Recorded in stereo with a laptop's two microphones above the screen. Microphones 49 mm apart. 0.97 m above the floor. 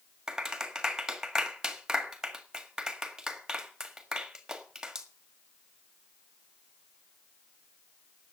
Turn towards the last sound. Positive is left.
turn(degrees=-10)  # may be behind; listen again after turning